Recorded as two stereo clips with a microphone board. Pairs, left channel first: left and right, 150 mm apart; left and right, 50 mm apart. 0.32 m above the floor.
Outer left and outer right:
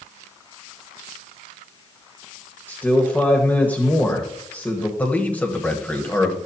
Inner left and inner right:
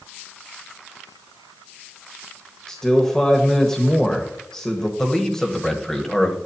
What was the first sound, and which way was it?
A man speaking, 10° left (ahead or behind).